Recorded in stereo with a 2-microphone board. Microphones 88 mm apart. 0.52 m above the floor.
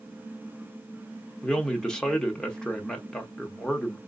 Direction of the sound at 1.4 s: 5° left (ahead or behind).